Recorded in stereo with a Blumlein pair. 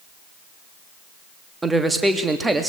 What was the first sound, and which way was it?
A man speaking, 10° right.